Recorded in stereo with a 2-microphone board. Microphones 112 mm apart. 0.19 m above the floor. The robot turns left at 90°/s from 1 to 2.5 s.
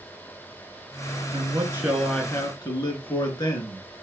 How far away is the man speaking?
About 3 m.